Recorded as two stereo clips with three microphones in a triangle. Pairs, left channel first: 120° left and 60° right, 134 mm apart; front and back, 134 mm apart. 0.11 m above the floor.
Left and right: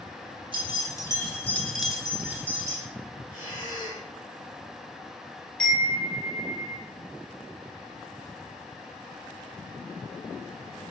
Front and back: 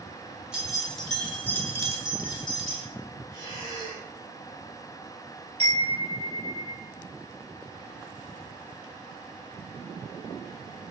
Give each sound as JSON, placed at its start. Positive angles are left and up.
{"t": 0.5, "sound": "keys jangling", "azimuth_deg": 100, "distance_m": 1.2}
{"t": 3.3, "sound": "breathing", "azimuth_deg": -15, "distance_m": 1.6}
{"t": 5.6, "sound": "a chime", "azimuth_deg": -160, "distance_m": 1.9}